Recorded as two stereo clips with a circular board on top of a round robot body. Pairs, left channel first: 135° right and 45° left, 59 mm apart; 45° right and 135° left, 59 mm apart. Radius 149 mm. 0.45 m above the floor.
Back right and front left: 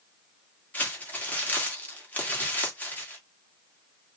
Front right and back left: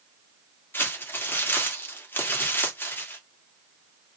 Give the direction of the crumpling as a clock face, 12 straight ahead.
3 o'clock.